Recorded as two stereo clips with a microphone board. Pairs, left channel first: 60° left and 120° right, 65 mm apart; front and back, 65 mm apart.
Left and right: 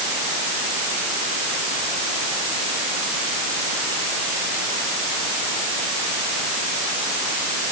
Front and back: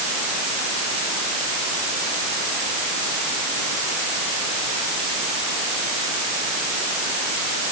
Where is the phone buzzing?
I don't hear a phone buzzing.